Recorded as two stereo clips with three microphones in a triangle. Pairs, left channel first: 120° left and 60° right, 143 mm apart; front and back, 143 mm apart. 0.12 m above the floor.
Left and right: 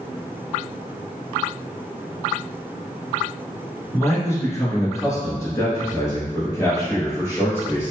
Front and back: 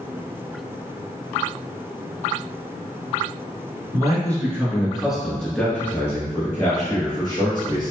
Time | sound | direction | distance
3.9 | a man speaking | 165° left | 1.3 m